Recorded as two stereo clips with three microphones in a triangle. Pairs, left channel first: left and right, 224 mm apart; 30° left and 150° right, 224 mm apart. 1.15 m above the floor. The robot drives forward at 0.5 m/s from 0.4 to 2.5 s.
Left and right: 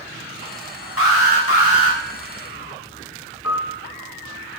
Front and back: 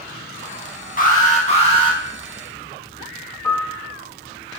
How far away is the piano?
About 1.3 m.